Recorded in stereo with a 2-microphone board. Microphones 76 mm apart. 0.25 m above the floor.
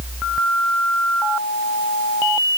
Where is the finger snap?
I don't hear a finger snap.